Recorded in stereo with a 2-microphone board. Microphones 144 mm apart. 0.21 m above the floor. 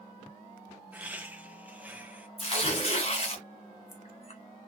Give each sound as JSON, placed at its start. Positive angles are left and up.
{"t": 0.9, "sound": "laughter", "side_deg": -10, "distance_m": 1.0}
{"t": 2.4, "sound": "tearing paper", "side_deg": 45, "distance_m": 1.1}